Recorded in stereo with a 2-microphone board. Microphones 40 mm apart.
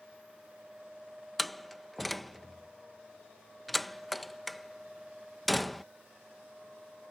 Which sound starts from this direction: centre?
A door slam, at 1.4 s.